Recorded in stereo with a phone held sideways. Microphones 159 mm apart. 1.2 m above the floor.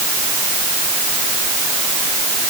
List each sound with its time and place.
Only background noise.